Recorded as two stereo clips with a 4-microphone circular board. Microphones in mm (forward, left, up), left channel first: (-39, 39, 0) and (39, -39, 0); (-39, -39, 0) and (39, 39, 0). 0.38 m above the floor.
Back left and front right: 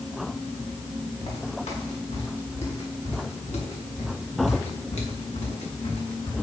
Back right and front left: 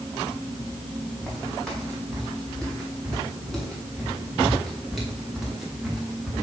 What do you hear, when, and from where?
1.2 s footsteps: 140° left, 6.5 m; by 6.3 s 130° left, 3.5 m